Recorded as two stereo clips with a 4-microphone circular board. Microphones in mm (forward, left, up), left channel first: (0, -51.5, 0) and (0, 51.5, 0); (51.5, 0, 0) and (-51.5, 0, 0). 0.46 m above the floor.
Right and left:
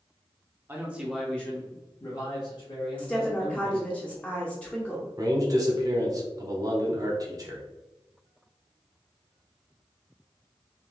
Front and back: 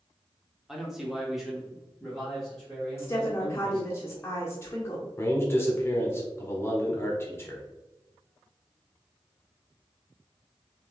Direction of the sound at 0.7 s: 105° left.